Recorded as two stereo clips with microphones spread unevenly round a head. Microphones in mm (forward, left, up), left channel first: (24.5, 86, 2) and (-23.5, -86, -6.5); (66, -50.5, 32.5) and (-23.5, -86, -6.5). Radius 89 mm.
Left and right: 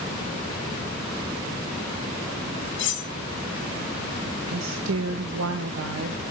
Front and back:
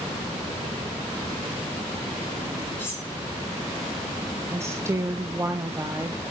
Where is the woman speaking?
105° right, 0.9 m.